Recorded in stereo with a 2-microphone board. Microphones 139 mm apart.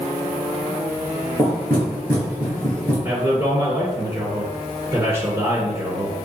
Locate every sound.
1.4 s knocking: 15° left (ahead or behind), 2 m
3.0 s a man speaking: 25° right (ahead or behind), 2 m